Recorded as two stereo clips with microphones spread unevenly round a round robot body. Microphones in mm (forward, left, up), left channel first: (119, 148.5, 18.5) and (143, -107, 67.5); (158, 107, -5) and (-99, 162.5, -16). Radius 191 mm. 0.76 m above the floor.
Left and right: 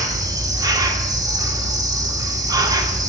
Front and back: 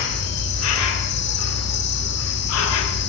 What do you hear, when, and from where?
0.0 s an insect: straight ahead, 1.3 m